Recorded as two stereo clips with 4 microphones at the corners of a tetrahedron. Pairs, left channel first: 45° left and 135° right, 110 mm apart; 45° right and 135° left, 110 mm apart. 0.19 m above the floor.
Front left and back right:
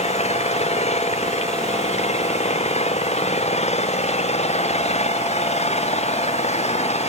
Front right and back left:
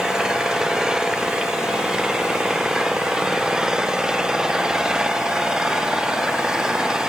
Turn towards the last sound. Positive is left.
turn(degrees=50)